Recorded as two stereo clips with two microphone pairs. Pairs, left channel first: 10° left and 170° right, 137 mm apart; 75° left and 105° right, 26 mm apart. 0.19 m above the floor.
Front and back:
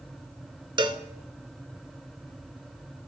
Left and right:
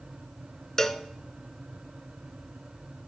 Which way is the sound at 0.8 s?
140° left.